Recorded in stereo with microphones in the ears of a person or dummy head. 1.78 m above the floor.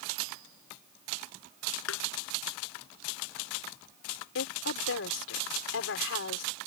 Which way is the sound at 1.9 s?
80° left.